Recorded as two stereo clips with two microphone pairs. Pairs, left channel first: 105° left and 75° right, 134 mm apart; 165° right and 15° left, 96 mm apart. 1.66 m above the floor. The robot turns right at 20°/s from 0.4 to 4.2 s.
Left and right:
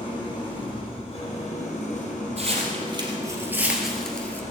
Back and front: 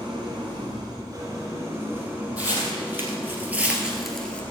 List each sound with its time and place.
0.0 s an engine running: 55° left, 4.5 m; by 4.5 s 130° left, 4.5 m
2.4 s footsteps: 55° right, 3 m; by 4.4 s 150° left, 1.7 m